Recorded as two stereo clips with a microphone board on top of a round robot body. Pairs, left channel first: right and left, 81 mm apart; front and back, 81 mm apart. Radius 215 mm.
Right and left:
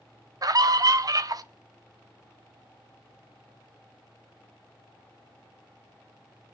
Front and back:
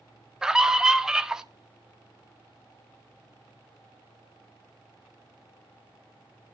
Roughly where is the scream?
Left.